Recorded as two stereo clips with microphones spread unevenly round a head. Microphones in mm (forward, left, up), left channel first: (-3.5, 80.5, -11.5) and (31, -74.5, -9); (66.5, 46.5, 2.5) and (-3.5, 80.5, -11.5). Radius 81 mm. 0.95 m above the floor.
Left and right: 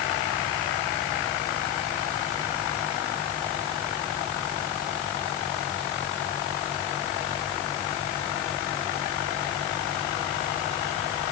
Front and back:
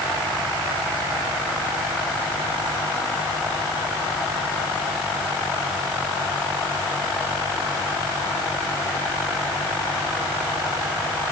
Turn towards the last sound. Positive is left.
No sound to turn to.